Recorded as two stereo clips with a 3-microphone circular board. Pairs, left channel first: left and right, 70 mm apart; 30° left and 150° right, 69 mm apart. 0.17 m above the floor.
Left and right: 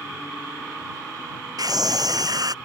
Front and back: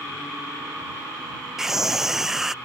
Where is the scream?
65° right.